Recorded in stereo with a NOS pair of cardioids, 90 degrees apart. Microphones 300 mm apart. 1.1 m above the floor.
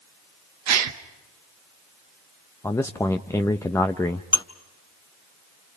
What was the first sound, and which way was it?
A gasp, 65° right.